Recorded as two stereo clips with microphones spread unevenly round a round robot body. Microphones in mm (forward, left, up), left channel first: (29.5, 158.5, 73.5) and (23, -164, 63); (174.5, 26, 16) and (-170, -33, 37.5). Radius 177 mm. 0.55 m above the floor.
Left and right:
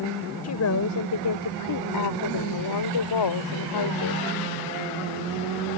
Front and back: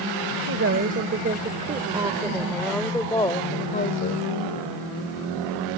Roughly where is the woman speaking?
Behind left.